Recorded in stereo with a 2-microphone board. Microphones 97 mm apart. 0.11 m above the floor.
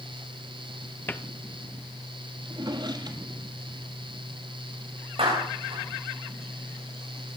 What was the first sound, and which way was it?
A cupboard door, 20° left (ahead or behind).